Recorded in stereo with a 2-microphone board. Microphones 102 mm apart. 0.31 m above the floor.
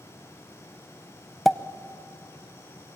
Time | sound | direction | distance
1.4 | a pop | centre (ahead or behind) | 0.6 m